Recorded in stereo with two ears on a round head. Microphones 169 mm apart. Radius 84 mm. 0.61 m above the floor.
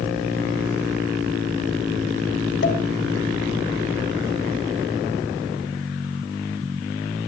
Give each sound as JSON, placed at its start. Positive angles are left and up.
{"t": 2.6, "sound": "a pop", "side_deg": 65, "distance_m": 4.5}